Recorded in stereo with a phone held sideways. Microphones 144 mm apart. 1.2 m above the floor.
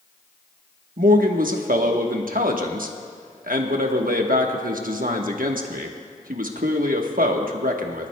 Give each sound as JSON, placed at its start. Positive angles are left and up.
{"t": 1.0, "sound": "a man speaking", "side_deg": -75, "distance_m": 1.1}